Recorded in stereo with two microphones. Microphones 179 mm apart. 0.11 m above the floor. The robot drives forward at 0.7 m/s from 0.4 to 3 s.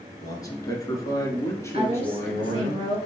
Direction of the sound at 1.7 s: 35° right (ahead or behind).